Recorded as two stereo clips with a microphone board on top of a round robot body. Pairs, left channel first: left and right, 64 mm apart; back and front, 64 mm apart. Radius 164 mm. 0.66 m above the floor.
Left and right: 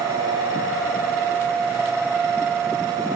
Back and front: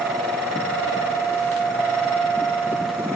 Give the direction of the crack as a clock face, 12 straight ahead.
No crack in this recording.